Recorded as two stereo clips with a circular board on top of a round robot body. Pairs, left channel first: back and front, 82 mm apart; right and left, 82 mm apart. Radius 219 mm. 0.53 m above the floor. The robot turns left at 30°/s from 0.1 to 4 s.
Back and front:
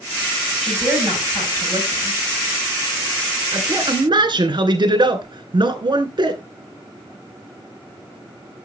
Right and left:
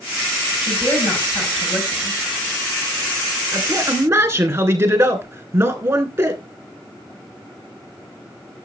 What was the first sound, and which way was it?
A woman speaking, 85° right.